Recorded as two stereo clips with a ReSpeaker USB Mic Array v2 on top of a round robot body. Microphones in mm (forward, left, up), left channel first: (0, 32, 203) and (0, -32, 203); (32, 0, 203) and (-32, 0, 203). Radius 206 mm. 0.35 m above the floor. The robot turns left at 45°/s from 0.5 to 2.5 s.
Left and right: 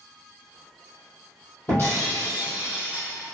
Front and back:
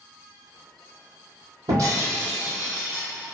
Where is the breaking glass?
150° left, 2 m; by 3.1 s 115° left, 2 m.